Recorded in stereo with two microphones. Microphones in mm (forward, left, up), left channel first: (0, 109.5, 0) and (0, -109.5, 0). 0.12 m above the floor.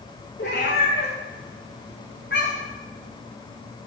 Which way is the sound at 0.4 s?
50° left (ahead or behind).